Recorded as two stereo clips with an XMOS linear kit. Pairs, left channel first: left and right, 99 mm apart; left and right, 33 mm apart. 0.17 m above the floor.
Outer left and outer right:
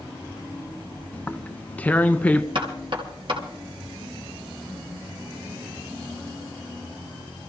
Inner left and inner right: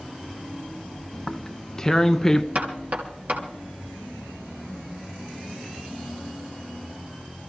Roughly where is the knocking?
Right.